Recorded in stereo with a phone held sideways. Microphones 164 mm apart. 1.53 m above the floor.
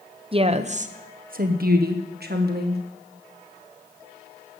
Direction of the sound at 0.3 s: 35° right (ahead or behind).